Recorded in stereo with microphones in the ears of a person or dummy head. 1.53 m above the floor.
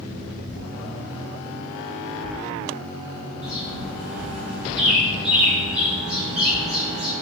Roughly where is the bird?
Centre.